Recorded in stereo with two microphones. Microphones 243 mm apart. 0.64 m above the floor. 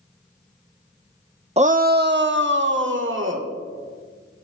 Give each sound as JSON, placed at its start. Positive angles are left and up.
{"t": 1.6, "sound": "a shout", "side_deg": -25, "distance_m": 0.6}